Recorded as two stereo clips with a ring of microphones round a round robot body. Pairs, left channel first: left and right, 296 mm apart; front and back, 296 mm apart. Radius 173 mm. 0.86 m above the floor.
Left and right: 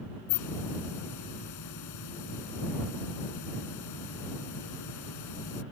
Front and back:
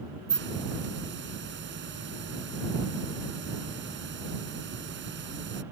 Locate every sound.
0.3 s a hiss: 125° left